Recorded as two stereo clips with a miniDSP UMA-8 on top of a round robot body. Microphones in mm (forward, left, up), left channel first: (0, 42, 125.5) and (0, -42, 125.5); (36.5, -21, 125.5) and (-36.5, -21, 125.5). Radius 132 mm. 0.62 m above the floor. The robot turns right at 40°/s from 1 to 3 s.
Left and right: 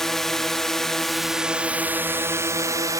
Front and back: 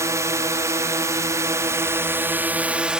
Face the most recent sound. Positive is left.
turn(degrees=-105)